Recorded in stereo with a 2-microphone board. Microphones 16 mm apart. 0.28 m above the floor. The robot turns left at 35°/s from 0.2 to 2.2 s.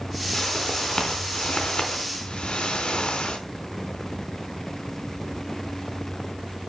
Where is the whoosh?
150° left, 3.5 m; by 3.4 s 85° left, 3.5 m.